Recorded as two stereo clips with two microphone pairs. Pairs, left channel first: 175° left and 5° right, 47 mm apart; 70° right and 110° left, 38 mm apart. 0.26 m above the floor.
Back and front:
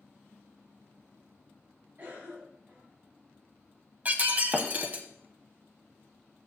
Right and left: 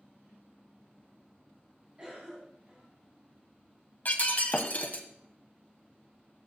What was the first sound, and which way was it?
A cough, 45° left.